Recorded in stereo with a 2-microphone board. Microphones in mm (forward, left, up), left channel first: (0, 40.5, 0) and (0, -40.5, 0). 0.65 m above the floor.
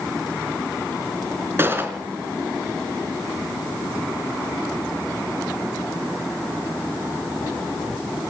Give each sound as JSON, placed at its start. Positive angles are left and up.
{"t": 1.6, "sound": "a gunshot", "side_deg": -30, "distance_m": 3.5}